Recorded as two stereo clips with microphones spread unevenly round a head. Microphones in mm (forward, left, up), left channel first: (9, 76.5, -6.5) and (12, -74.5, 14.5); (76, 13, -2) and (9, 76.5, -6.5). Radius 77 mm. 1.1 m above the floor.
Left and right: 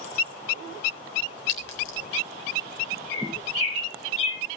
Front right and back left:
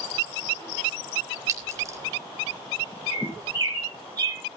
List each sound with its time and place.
1.5 s a clink: 80° left, 3.5 m
3.1 s a bird: 90° left, 7.5 m